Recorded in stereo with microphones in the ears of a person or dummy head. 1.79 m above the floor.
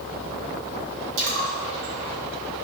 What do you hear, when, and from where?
1.2 s a splash: 65° right (ahead or behind), 1.9 m